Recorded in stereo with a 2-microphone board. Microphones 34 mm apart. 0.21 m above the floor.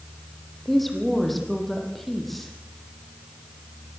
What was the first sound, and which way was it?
A woman speaking, 5° left (ahead or behind).